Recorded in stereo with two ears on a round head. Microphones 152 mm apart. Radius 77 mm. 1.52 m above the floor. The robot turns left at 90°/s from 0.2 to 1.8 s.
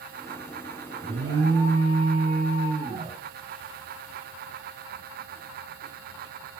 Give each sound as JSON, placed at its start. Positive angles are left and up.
{"t": 1.0, "sound": "an alarm", "azimuth_deg": -75, "distance_m": 2.0}